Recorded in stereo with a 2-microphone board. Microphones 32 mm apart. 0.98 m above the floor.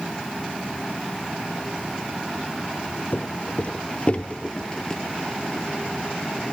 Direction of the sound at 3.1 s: 55° left (ahead or behind).